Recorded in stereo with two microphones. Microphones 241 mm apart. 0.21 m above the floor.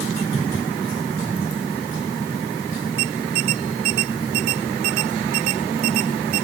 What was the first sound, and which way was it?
Only background noise.